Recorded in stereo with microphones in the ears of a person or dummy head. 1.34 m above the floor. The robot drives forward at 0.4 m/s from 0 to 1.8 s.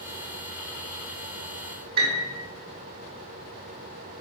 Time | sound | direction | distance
2.0 | a piano | 50° right (ahead or behind) | 4.5 m